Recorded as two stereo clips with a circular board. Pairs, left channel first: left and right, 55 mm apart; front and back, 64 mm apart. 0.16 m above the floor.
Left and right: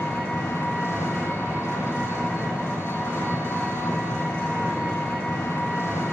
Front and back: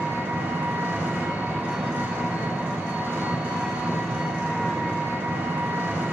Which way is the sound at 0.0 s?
120° left.